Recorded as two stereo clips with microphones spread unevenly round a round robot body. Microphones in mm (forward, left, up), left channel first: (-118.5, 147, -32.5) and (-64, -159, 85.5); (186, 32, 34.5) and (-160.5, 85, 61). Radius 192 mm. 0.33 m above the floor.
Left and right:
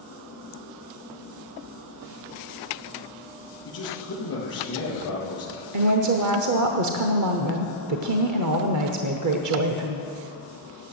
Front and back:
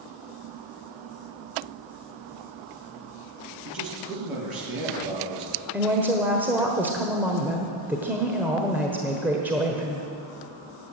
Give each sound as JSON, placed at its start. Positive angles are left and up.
{"t": 3.6, "sound": "a man speaking", "azimuth_deg": 150, "distance_m": 6.0}
{"t": 5.7, "sound": "a woman speaking", "azimuth_deg": -100, "distance_m": 1.2}